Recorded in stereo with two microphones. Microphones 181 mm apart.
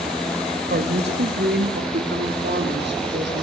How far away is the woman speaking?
About 1.8 m.